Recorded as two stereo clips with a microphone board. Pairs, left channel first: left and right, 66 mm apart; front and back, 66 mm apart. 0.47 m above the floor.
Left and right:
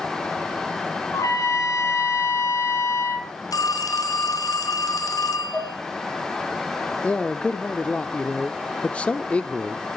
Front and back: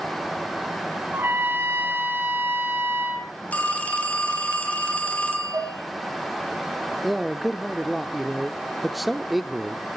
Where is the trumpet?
125° left, 2.5 m.